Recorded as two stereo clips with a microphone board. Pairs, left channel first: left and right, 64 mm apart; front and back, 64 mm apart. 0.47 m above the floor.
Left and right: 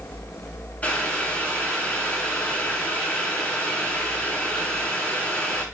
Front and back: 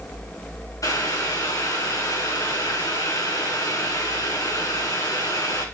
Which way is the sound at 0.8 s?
25° left.